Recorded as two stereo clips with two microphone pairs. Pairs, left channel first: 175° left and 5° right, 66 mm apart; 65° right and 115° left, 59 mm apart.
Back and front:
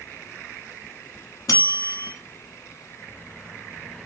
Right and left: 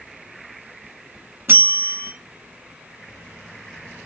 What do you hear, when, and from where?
1.5 s a bell: 160° left, 0.8 m